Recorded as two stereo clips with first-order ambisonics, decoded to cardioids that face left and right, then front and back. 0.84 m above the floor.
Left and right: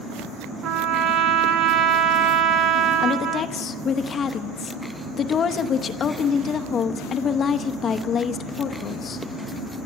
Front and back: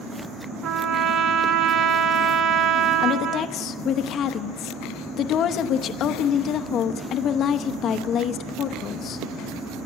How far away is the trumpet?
About 1.2 m.